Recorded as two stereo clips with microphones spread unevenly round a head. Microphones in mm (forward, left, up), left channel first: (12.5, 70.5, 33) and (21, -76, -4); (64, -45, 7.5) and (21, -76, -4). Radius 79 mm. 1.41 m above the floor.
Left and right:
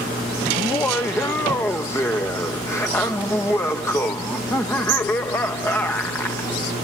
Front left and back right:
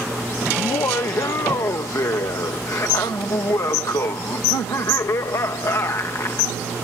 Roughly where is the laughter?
Ahead.